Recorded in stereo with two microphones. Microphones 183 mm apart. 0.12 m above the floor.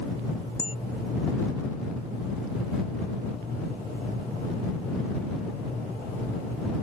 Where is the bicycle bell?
35° left (ahead or behind).